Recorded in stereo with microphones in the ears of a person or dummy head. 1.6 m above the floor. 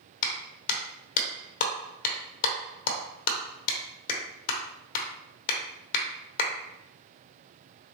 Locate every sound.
0.2 s a clap: 55° left (ahead or behind), 0.9 m